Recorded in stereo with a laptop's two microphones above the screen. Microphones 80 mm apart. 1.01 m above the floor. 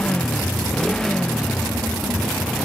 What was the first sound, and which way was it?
A motorcycle, 10° left (ahead or behind).